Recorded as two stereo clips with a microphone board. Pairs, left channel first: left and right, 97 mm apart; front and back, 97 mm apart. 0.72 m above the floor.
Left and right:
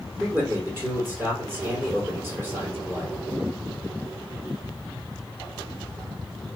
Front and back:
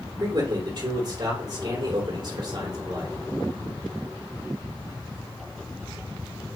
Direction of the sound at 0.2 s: 155° right.